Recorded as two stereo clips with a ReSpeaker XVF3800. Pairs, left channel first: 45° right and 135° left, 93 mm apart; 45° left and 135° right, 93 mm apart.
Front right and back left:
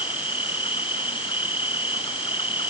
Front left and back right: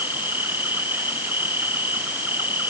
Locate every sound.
0.0 s an insect: 65° right